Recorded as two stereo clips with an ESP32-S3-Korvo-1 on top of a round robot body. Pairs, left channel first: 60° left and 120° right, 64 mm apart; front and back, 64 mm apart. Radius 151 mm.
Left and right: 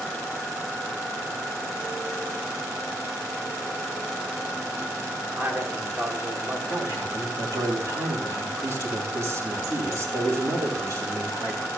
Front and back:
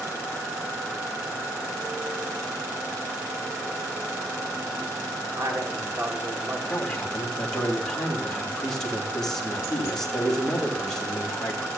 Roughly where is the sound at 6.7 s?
Right.